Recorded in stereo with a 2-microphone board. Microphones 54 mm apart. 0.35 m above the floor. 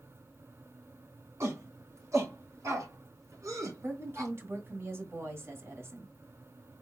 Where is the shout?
60° right (ahead or behind), 3 m; by 4.3 s 75° right (ahead or behind), 3.5 m.